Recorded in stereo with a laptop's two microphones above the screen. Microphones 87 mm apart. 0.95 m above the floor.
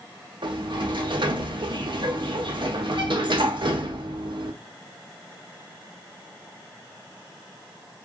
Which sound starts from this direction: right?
A sliding door, at 0.4 s.